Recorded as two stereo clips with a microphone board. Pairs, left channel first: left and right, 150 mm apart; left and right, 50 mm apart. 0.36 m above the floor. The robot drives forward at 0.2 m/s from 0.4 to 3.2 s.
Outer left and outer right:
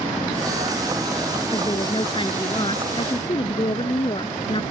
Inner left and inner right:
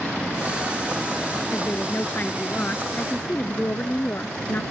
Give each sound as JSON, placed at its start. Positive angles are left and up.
{"t": 1.5, "sound": "a woman speaking", "side_deg": 35}